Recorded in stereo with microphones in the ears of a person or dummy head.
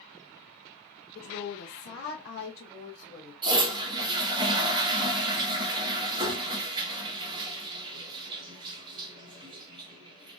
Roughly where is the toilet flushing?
Right.